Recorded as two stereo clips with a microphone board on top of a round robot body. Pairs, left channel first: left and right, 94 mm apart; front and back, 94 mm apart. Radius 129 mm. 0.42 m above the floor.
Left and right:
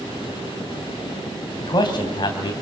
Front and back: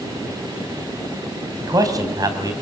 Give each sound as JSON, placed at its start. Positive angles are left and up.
{"t": 1.6, "sound": "a man speaking", "azimuth_deg": 130, "distance_m": 3.0}